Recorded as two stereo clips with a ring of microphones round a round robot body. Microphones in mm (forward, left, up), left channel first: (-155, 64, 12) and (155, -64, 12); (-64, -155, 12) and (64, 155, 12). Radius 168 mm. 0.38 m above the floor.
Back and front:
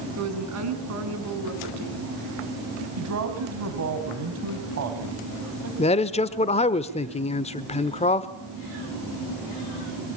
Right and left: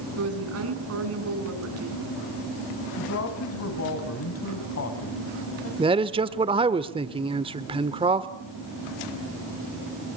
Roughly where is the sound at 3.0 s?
Ahead right.